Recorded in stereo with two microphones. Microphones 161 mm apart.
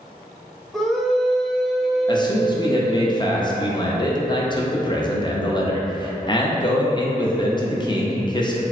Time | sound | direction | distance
0.7 | a scream | centre (ahead or behind) | 0.6 m
2.1 | a man speaking | 30° left (ahead or behind) | 0.5 m